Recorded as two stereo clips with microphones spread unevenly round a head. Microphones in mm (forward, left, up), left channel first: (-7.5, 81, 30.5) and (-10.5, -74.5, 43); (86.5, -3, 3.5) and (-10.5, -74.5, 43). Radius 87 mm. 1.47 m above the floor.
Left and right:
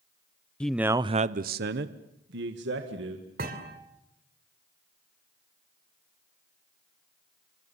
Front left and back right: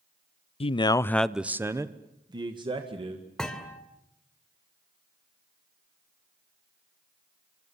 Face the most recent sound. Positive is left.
turn(degrees=-55)